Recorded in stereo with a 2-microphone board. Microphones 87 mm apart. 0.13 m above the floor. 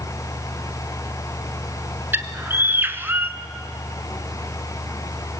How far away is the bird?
About 1.1 m.